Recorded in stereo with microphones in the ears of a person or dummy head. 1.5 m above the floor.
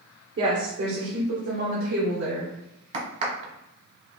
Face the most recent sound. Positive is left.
turn(degrees=-35)  # may be behind; listen again after turning